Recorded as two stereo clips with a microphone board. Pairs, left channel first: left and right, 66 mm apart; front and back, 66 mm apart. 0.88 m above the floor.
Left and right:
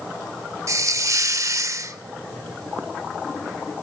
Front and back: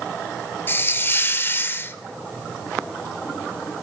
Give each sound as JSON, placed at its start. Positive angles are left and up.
{"t": 0.7, "sound": "a hiss", "azimuth_deg": -55, "distance_m": 1.0}